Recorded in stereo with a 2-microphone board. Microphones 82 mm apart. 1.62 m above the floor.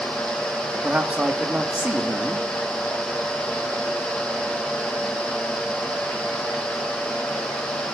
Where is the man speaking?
15° right (ahead or behind), 2.5 m.